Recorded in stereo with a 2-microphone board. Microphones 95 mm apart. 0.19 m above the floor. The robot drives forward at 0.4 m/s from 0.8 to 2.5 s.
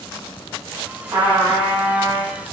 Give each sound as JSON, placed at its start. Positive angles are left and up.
{"t": 1.1, "sound": "a trumpet", "side_deg": -30, "distance_m": 1.1}